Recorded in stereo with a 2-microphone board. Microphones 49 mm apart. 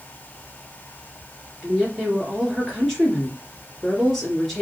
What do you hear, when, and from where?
1.6 s a woman speaking: centre (ahead or behind), 2.5 m